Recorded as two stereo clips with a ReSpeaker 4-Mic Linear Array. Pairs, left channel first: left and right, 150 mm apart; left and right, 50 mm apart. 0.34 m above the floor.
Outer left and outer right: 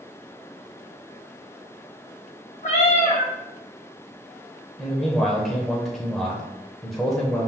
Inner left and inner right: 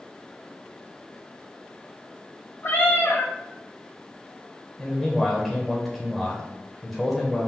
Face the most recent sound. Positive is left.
turn(degrees=0)  # may be behind; listen again after turning